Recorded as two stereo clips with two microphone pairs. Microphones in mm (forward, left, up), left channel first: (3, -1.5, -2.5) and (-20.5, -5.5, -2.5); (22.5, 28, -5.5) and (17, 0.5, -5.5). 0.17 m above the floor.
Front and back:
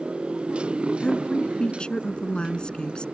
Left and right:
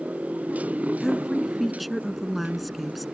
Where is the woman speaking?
15° right.